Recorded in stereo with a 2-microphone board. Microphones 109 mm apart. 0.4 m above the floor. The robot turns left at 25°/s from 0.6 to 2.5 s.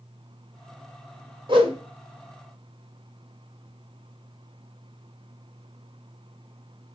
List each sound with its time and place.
1.5 s a whoosh: 50° right (ahead or behind), 1.0 m